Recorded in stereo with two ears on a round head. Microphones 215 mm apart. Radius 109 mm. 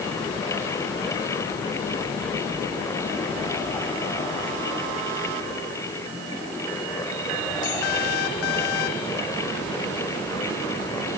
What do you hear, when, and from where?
Only background noise.